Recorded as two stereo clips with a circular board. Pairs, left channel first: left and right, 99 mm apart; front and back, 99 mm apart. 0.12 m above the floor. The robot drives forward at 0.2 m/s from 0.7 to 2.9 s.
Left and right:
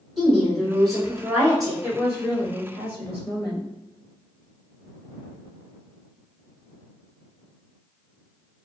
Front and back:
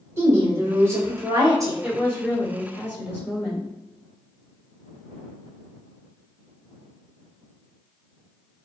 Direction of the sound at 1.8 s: 115° left.